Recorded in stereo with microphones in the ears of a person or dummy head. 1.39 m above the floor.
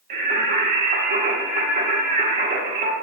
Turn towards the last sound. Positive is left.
turn(degrees=-45)  # may be behind; listen again after turning